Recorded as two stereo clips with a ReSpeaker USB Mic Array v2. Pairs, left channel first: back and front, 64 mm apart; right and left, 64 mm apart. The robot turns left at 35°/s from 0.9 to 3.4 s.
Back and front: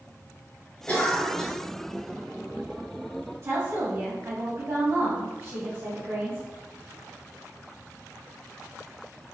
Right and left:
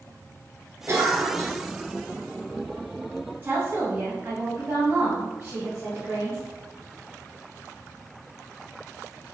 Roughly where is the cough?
Behind left.